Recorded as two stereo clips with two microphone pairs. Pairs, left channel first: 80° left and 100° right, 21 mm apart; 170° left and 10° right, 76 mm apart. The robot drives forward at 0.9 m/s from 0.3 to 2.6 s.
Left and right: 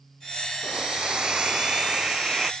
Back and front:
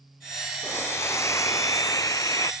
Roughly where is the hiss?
Behind right.